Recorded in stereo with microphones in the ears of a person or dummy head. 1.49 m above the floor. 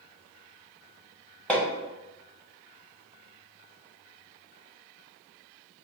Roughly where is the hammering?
Centre.